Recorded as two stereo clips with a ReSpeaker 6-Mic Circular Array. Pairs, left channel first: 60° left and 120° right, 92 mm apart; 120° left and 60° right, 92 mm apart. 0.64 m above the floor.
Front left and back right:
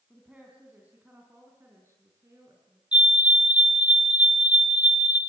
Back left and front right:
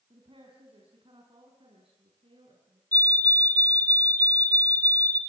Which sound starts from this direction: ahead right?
A woman speaking, at 0.1 s.